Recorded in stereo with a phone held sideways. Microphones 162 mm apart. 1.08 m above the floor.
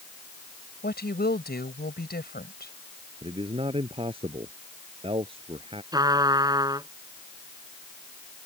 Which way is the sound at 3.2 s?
35° right (ahead or behind).